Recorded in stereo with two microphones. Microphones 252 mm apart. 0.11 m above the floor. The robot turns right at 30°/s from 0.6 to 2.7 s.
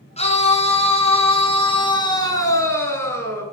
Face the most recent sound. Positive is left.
turn(degrees=10)  # may be behind; listen again after turning